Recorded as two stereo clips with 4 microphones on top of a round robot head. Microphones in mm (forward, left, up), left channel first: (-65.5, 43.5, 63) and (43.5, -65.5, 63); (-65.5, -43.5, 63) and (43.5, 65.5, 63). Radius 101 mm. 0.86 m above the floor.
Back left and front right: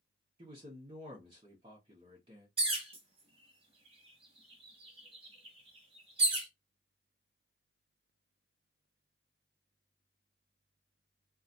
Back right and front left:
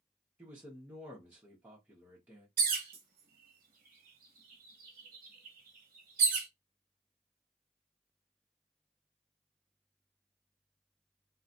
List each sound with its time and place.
0.4 s a man speaking: 30° right, 1.1 m
2.6 s a bird: 10° left, 0.9 m